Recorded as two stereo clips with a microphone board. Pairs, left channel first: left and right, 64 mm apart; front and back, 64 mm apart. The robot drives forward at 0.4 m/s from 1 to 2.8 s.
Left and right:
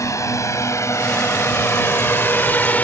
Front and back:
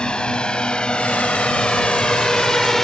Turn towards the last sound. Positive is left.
turn(degrees=80)